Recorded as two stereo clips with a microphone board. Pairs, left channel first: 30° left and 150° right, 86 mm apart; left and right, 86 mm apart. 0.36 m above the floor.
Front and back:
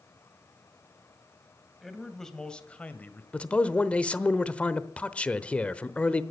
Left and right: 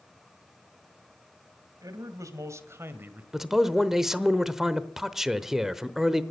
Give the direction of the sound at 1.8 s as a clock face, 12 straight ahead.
2 o'clock.